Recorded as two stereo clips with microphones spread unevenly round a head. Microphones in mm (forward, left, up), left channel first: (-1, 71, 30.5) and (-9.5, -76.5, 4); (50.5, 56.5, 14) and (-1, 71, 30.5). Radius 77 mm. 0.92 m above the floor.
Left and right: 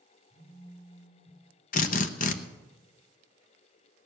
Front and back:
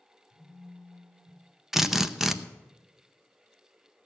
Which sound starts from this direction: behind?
A phone buzzing, at 0.3 s.